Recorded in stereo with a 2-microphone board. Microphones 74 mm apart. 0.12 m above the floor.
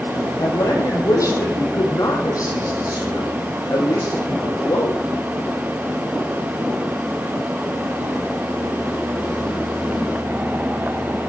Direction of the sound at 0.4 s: 50° left (ahead or behind).